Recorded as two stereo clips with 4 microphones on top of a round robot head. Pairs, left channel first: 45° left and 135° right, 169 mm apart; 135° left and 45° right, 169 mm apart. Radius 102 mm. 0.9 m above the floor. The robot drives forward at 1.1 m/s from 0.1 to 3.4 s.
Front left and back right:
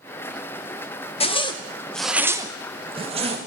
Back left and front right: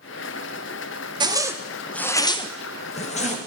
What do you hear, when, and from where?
1.2 s a zipper: 10° left, 1.1 m; by 3.4 s 175° left, 1.8 m